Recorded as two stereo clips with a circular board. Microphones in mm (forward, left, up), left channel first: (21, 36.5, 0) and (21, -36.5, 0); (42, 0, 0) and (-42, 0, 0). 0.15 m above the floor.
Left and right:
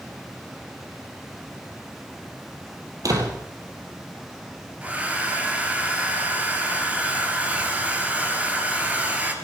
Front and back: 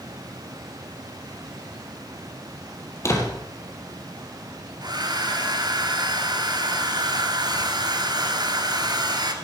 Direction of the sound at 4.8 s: 155° right.